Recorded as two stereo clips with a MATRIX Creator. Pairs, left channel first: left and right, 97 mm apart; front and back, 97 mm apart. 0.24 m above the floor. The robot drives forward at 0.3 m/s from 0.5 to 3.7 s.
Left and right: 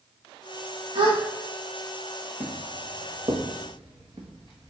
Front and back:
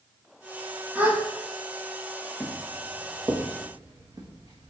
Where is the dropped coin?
I don't hear a dropped coin.